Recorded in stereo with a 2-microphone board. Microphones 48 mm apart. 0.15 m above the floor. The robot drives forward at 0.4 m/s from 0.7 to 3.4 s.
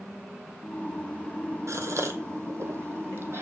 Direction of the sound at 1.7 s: 80° right.